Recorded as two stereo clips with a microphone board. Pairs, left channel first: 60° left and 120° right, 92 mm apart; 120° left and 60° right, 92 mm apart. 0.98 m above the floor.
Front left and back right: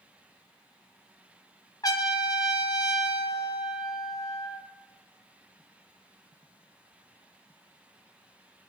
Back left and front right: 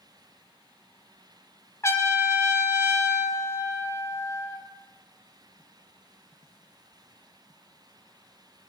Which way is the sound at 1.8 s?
75° left.